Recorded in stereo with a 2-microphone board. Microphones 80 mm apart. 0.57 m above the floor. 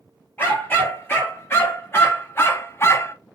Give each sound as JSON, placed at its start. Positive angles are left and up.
{"t": 0.4, "sound": "a dog barking", "side_deg": 30, "distance_m": 3.0}